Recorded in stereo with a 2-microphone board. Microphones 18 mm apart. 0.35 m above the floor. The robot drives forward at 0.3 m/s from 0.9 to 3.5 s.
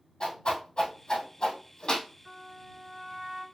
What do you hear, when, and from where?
0.2 s a whoosh: 50° left (ahead or behind), 2.5 m; by 2.1 s 45° left (ahead or behind), 2.5 m
2.2 s a trumpet: 15° right (ahead or behind), 2 m; by 3.4 s 10° right (ahead or behind), 2.5 m